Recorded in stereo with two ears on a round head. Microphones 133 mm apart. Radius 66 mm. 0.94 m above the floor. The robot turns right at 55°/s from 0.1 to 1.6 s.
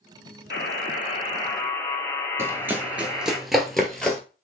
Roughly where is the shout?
No shout in this recording.